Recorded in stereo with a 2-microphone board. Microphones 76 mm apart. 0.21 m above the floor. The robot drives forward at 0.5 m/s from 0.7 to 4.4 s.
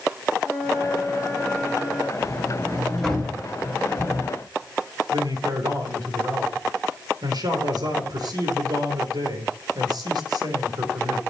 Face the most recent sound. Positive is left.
turn(degrees=-65)  # may be behind; listen again after turning